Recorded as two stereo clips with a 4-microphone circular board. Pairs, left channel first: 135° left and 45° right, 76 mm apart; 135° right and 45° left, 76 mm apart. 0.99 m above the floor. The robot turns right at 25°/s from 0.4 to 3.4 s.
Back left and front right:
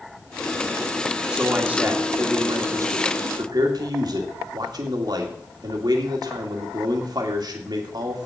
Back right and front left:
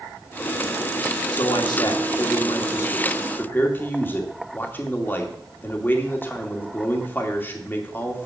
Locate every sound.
1.3 s a man speaking: 125° right, 2 m; by 8.3 s 70° right, 2 m